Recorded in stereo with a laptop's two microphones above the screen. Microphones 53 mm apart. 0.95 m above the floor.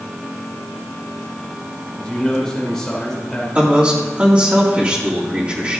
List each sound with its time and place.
2.0 s a man speaking: 10° left (ahead or behind), 3 m
3.5 s a man speaking: 30° right (ahead or behind), 2.5 m